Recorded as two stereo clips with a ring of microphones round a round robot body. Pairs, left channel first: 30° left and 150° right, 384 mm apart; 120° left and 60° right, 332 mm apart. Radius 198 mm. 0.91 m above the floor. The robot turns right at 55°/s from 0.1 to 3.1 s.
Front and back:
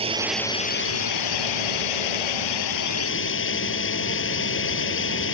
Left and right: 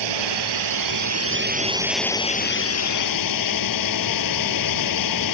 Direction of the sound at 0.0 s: 75° right.